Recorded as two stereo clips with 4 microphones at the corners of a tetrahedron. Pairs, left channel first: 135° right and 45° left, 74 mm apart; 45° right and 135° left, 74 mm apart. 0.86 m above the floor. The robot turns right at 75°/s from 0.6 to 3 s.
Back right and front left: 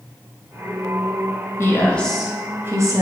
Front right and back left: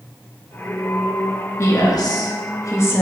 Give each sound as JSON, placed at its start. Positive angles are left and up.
{"t": 1.6, "sound": "a woman speaking", "azimuth_deg": -90, "distance_m": 0.8}